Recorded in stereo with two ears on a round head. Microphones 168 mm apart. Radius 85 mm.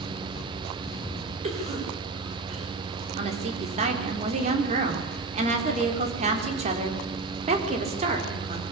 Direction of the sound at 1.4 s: 40° right (ahead or behind).